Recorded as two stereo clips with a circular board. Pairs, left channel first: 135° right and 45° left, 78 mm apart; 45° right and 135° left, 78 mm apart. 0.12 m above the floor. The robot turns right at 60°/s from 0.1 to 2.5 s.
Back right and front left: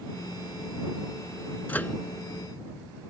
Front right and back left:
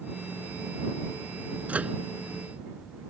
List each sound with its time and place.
1.7 s a microwave: straight behind; by 2.0 s 160° right